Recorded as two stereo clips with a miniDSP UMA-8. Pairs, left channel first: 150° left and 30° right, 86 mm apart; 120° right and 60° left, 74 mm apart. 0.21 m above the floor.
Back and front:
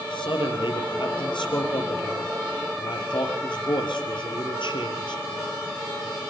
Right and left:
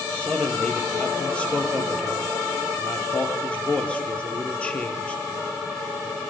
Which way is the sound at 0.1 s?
165° left.